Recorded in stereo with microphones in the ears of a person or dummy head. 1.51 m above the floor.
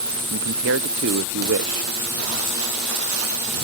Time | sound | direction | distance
0.3 | a man speaking | 70° right (ahead or behind) | ?